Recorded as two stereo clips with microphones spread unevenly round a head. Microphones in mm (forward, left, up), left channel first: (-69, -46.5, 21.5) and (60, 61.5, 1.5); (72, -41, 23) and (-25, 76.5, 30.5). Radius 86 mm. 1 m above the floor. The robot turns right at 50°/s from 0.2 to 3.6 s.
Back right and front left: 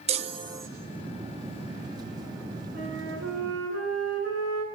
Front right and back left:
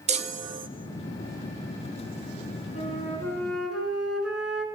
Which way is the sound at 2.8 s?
Straight ahead.